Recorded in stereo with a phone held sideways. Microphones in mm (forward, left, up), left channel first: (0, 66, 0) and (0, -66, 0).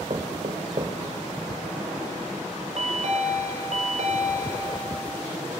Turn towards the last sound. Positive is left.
turn(degrees=-65)  # may be behind; listen again after turning